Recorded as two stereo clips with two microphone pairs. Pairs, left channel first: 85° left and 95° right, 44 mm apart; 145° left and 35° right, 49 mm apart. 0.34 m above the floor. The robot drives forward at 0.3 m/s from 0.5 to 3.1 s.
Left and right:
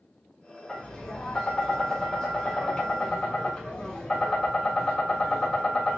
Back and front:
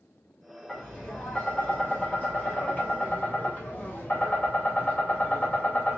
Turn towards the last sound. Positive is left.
turn(degrees=155)